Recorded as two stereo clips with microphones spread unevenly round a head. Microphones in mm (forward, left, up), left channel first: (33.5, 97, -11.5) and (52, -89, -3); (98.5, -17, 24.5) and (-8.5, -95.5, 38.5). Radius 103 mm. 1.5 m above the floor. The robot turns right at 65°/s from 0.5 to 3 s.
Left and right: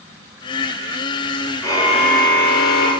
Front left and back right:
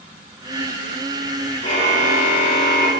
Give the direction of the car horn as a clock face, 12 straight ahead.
11 o'clock.